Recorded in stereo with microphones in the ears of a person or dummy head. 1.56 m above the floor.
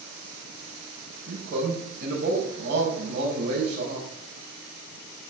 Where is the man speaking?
55° right (ahead or behind), 6 m.